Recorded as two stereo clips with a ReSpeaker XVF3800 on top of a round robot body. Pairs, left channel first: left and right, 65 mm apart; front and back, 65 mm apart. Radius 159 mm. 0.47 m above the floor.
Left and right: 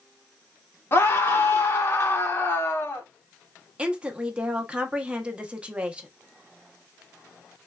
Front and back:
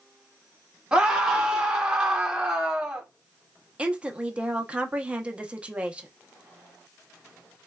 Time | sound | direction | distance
0.9 | a scream | 115° left | 1.3 m
3.8 | a woman speaking | 135° right | 0.8 m